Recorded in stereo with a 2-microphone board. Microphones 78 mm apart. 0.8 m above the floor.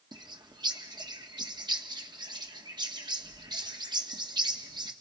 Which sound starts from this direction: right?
A bird, at 0.1 s.